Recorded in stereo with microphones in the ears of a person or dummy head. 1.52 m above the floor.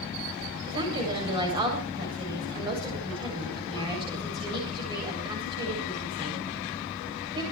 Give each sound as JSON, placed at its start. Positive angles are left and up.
{"t": 0.7, "sound": "a woman speaking", "side_deg": -25, "distance_m": 7.5}